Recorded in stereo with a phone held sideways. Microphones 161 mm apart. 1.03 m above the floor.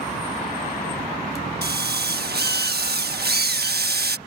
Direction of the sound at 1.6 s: 80° right.